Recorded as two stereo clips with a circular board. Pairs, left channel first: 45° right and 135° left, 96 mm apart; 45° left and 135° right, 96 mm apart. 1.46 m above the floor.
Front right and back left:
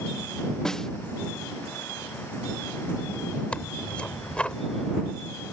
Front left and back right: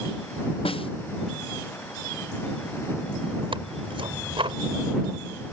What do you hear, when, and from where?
0.7 s a snare drum: 40° left
3.5 s tearing paper: 125° right